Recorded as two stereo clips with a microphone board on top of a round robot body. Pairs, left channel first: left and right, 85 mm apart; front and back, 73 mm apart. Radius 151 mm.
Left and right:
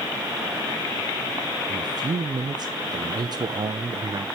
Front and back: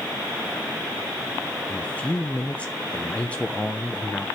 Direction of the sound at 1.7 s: 70° right.